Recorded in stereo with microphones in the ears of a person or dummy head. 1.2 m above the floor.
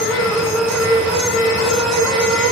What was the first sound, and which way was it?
A fan, centre (ahead or behind).